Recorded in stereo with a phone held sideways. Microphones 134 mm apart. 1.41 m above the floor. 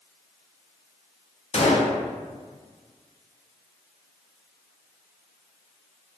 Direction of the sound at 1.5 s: 55° left (ahead or behind).